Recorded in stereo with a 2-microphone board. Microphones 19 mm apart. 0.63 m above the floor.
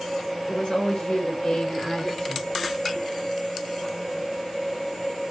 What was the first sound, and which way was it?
A woman speaking, 60° left (ahead or behind).